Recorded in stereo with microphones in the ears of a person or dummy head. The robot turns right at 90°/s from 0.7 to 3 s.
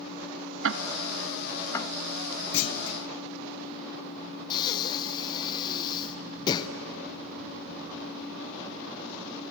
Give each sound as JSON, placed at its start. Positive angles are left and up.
{"t": 0.6, "sound": "ticking", "side_deg": -60, "distance_m": 0.7}
{"t": 2.5, "sound": "a clunk", "azimuth_deg": 70, "distance_m": 0.8}
{"t": 4.5, "sound": "breathing", "side_deg": 25, "distance_m": 0.8}